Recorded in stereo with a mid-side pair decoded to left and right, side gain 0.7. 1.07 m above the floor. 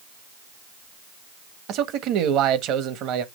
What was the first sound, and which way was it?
A man speaking, 55° right.